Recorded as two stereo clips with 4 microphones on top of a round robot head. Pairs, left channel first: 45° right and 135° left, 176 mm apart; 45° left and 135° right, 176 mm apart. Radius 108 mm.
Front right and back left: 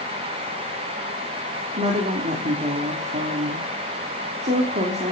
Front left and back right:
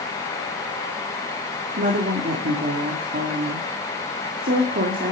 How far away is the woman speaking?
About 3 m.